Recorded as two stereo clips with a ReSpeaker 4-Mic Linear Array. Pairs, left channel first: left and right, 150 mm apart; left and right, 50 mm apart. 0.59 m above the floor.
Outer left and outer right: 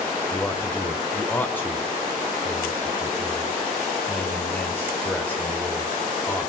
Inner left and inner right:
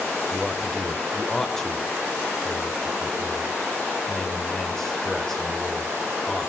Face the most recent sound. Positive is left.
turn(degrees=10)  # may be behind; listen again after turning